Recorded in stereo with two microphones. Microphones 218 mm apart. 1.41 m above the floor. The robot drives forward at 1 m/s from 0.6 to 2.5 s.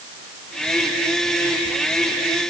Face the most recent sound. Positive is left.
No sound to turn to.